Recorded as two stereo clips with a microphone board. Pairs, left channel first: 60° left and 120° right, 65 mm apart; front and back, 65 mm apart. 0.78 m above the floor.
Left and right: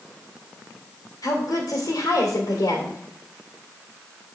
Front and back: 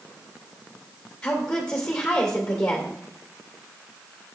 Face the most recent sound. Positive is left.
turn(degrees=70)